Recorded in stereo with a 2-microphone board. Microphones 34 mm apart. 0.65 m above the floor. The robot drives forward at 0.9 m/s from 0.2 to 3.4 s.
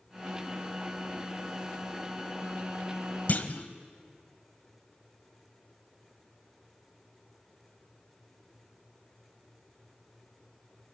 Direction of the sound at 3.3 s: 50° left (ahead or behind).